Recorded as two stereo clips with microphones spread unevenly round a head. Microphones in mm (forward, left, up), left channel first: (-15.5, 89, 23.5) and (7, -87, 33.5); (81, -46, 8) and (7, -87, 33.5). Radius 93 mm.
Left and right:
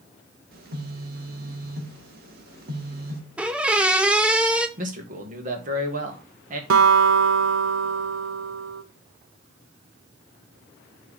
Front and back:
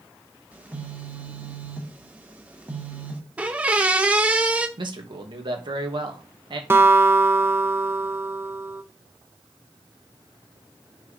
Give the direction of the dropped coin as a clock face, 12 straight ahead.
No dropped coin in this recording.